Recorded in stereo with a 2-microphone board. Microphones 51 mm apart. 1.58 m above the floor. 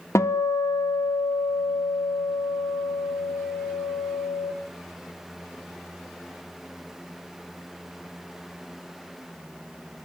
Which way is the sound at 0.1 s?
65° left (ahead or behind).